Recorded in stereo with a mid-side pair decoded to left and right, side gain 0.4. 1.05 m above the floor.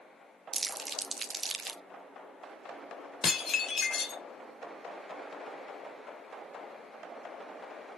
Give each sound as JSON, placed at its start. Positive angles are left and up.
{"t": 0.5, "sound": "crumpling", "azimuth_deg": -40, "distance_m": 1.0}
{"t": 3.2, "sound": "dishes clattering", "azimuth_deg": 50, "distance_m": 1.7}